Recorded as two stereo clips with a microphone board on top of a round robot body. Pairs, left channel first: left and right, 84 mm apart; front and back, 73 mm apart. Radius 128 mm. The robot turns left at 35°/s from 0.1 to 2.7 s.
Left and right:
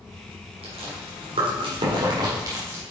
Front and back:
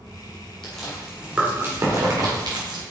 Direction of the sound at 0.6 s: 80° right.